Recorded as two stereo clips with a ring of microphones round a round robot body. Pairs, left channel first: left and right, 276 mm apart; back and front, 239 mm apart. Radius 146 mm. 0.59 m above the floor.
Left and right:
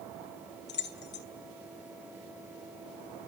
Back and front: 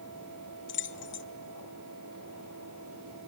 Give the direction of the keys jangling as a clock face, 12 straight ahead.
7 o'clock.